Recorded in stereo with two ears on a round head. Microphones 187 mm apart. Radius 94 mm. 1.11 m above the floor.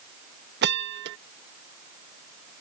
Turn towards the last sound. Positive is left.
turn(degrees=-50)  # may be behind; listen again after turning